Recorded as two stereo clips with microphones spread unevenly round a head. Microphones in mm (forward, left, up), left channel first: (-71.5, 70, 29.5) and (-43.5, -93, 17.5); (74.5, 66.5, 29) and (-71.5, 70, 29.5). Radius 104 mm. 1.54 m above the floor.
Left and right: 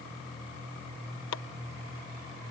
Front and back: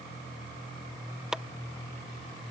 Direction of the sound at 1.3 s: 95° left.